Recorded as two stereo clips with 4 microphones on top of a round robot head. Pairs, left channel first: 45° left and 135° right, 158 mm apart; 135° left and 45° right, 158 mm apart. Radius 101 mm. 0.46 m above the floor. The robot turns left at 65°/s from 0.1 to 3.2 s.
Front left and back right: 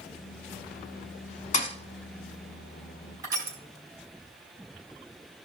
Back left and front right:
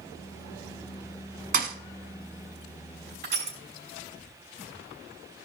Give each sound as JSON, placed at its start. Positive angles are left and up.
{"t": 1.5, "sound": "a thud", "azimuth_deg": -5, "distance_m": 1.0}
{"t": 3.2, "sound": "crushing", "azimuth_deg": -70, "distance_m": 3.5}